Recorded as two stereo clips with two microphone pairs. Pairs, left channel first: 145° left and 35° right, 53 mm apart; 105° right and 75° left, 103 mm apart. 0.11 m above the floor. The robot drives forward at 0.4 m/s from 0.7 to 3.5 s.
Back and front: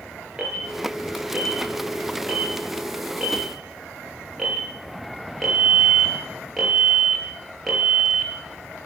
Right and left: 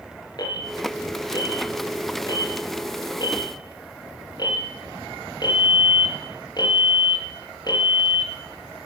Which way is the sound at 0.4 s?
100° right.